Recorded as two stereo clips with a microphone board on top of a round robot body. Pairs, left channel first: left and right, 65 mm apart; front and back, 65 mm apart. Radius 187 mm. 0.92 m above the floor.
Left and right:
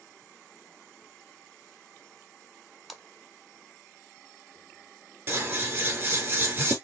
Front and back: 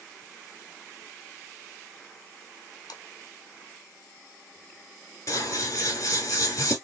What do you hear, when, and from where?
2.9 s a splash: 5° right, 0.7 m
5.3 s scissors: 35° right, 2 m